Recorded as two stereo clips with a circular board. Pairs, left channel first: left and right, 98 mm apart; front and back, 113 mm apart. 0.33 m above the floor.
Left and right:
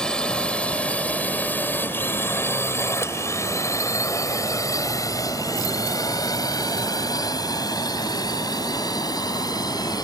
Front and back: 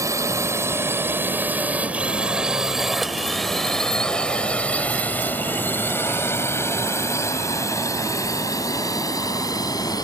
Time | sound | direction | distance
0.0 | a drone | 165° left | ?